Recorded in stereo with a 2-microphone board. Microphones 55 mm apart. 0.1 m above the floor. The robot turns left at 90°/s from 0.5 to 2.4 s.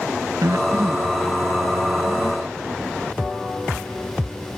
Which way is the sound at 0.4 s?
65° right (ahead or behind).